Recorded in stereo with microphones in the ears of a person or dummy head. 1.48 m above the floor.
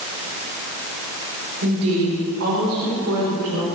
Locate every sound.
1.6 s a woman speaking: 75° right (ahead or behind), 5 m; by 3.7 s 90° right, 4 m